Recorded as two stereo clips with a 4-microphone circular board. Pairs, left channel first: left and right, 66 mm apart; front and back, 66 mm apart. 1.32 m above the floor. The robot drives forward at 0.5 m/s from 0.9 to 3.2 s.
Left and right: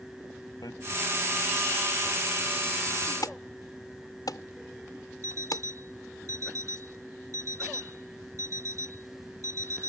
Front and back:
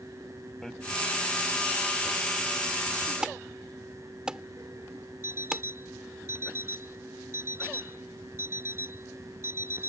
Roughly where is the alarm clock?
Behind right.